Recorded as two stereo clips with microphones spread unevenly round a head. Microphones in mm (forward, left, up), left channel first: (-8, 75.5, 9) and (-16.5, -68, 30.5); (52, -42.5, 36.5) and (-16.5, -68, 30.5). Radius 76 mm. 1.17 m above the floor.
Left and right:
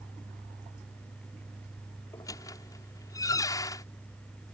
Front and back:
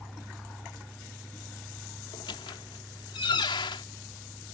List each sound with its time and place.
2.1 s a squeak: 15° left